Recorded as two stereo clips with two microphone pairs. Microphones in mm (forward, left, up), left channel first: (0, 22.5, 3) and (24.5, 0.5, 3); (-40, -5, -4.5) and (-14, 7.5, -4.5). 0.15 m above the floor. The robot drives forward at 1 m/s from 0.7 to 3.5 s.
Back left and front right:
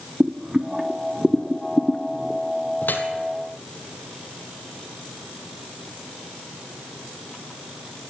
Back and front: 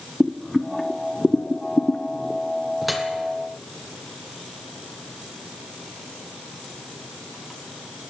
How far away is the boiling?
About 0.6 m.